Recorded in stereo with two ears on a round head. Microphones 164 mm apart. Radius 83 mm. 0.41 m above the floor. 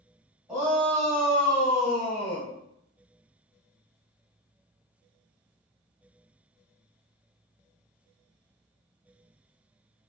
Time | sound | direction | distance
0.5 | a shout | 10° right (ahead or behind) | 1.8 m